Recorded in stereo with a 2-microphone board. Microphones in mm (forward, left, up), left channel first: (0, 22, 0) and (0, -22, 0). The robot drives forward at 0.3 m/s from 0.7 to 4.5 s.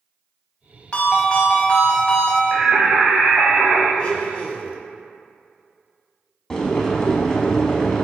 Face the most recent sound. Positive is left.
turn(degrees=15)  # may be behind; listen again after turning